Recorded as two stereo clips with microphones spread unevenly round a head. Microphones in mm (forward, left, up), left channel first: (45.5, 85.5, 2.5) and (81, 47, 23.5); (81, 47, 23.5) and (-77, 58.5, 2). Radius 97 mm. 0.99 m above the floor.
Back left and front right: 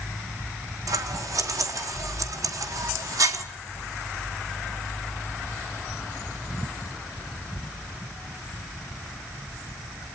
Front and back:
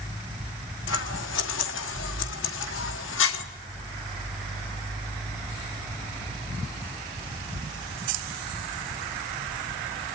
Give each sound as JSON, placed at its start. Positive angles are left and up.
{"t": 0.9, "sound": "scissors", "azimuth_deg": -35, "distance_m": 1.3}